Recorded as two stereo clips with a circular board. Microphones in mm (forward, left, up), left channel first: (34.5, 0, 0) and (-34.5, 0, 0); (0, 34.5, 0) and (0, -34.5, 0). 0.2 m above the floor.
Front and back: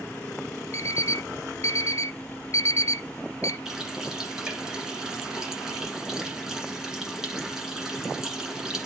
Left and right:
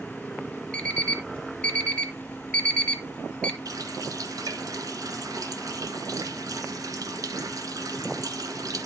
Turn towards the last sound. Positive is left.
turn(degrees=-100)